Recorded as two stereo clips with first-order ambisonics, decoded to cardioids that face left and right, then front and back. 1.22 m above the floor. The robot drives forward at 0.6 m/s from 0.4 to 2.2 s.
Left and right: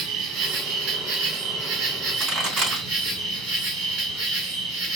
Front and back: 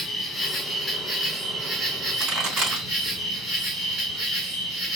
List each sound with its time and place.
0.0 s an insect: 85° right, 1.6 m; by 5.0 s 120° right, 1.8 m
2.2 s a pop: 140° right, 4 m